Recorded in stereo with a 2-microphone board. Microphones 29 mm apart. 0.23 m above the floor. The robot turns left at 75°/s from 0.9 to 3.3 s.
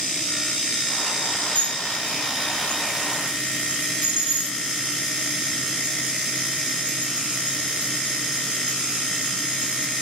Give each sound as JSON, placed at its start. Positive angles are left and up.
{"t": 1.6, "sound": "dishes clattering", "side_deg": 75, "distance_m": 2.5}